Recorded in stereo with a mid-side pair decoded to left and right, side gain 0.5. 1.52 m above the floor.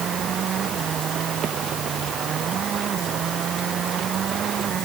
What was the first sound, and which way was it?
Only background noise.